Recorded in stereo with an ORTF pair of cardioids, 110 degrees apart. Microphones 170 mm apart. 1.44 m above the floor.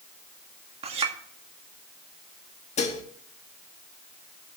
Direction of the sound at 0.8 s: 35° right.